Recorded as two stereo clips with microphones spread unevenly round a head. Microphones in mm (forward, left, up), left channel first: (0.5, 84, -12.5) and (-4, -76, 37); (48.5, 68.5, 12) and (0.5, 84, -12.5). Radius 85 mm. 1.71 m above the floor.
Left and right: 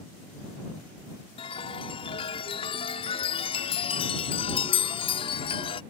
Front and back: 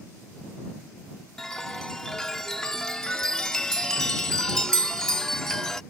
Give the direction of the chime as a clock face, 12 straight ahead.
11 o'clock.